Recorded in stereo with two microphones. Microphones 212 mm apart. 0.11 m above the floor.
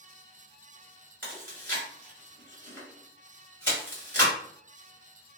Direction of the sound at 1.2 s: 10° left (ahead or behind).